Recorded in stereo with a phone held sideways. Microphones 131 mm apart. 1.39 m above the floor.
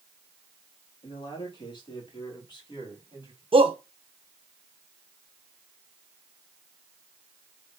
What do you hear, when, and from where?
1.0 s a man speaking: 40° left (ahead or behind), 2.5 m; by 3.4 s 35° left (ahead or behind), 4 m
3.5 s a shout: 45° right (ahead or behind), 1.2 m